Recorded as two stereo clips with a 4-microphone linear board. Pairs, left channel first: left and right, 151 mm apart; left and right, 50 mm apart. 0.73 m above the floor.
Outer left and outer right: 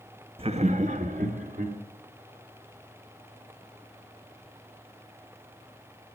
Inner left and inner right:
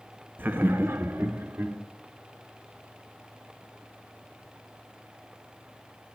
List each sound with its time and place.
0.4 s laughter: 40° right (ahead or behind), 0.8 m; by 1.8 s 60° right (ahead or behind), 2 m